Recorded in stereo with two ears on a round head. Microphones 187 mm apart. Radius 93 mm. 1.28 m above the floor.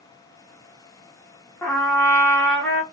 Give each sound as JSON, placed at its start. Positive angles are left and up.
{"t": 1.6, "sound": "a trumpet", "side_deg": 10, "distance_m": 0.9}